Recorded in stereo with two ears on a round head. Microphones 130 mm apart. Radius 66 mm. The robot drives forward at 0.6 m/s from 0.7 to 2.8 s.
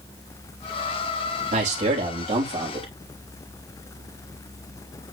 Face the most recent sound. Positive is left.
turn(degrees=-45)  # may be behind; listen again after turning